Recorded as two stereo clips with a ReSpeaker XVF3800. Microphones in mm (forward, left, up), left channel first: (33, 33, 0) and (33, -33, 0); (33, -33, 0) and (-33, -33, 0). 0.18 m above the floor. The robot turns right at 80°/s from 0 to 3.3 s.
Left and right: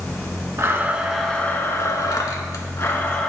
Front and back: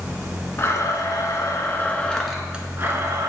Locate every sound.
0.6 s a blender: 45° right, 0.6 m; by 3.3 s 170° left, 0.6 m